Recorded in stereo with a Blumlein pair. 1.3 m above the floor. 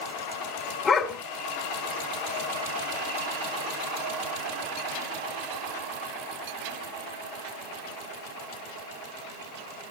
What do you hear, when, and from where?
0.8 s a dog barking: 15° left, 2.5 m